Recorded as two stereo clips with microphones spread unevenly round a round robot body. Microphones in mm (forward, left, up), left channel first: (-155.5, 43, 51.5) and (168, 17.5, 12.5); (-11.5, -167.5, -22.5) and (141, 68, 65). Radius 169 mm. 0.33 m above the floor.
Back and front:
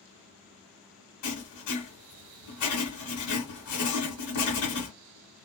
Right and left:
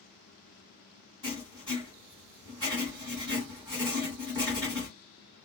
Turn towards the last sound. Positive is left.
turn(degrees=140)